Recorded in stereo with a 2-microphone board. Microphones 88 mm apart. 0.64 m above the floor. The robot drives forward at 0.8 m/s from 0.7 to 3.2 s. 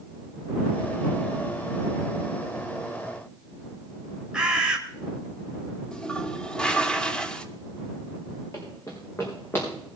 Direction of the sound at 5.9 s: 10° left (ahead or behind).